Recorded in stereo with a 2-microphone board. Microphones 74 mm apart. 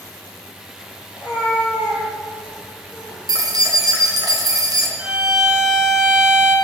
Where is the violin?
10° right (ahead or behind), 3 m.